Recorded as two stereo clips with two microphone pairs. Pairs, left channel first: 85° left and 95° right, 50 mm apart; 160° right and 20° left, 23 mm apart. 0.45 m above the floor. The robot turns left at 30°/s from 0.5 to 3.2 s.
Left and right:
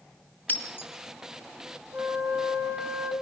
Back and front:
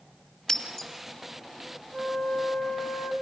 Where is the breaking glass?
145° left, 2 m; by 0.9 s 135° left, 2 m.